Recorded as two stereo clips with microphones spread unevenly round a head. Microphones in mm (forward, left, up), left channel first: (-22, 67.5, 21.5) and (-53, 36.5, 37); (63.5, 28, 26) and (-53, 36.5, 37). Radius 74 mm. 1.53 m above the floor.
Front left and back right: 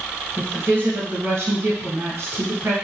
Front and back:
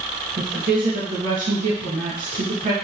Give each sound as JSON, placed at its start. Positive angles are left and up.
{"t": 0.4, "sound": "a woman speaking", "azimuth_deg": -175, "distance_m": 2.0}